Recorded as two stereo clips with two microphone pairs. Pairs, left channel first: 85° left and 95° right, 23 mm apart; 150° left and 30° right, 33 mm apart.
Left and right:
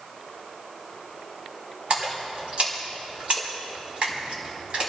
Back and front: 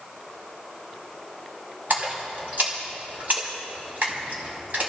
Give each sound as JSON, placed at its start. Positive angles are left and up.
{"t": 1.9, "sound": "a splash", "azimuth_deg": -55, "distance_m": 4.5}